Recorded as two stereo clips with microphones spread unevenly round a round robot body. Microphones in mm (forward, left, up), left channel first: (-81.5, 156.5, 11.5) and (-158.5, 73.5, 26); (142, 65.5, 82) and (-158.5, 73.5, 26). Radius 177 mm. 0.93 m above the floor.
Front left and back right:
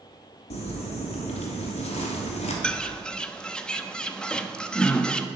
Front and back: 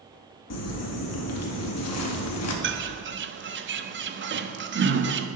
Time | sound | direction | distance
0.5 | crumpling | 40° left | 2.5 m
2.6 | a bird | 130° left | 1.3 m